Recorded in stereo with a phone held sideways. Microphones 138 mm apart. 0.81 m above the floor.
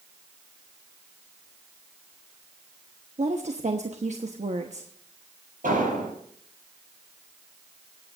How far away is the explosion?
About 7 m.